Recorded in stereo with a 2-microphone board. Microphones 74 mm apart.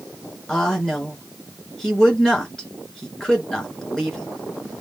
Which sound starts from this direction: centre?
A woman speaking, at 0.5 s.